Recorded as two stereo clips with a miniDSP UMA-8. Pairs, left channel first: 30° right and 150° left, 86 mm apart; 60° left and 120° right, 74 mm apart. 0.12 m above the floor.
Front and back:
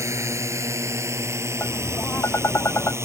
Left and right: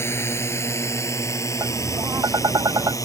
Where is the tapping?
90° right.